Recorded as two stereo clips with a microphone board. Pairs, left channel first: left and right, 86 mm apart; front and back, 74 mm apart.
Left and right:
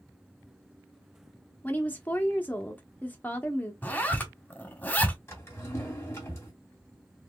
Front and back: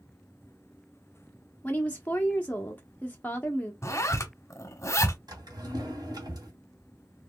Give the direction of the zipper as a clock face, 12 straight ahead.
11 o'clock.